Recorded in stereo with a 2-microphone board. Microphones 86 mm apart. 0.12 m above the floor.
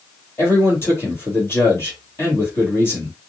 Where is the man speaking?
30° left (ahead or behind), 2.5 m.